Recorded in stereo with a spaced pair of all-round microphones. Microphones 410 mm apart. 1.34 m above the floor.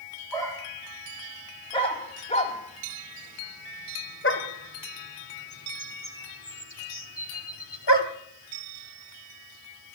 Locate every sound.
0.3 s a dog barking: 5° left (ahead or behind), 4.5 m; by 8.1 s 65° left (ahead or behind), 1.9 m